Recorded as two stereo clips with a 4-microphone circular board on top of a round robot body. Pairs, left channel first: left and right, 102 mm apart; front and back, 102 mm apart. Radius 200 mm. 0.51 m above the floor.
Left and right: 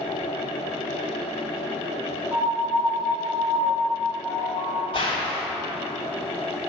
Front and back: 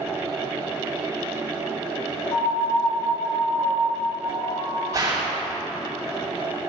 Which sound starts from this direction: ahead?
A piano, at 2.3 s.